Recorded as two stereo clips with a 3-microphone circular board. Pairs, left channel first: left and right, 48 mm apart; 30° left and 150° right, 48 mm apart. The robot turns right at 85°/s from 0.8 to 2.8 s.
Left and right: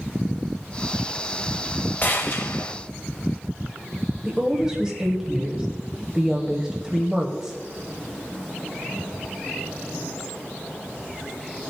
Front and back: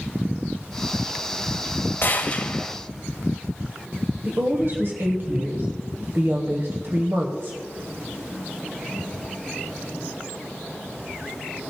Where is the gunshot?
50° left, 1.1 m; by 2.7 s 115° left, 1.1 m.